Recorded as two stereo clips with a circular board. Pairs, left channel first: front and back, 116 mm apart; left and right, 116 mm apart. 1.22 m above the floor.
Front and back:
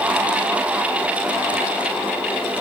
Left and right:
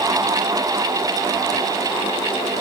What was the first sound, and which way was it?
Only background noise.